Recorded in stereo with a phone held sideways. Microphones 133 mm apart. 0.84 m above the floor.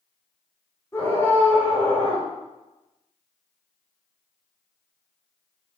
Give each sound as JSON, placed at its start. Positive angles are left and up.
{"t": 0.9, "sound": "a scream", "side_deg": 20, "distance_m": 3.5}